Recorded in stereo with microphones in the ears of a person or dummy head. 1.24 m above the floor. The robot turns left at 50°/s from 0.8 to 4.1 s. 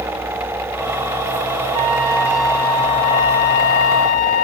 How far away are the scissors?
No scissors in this recording.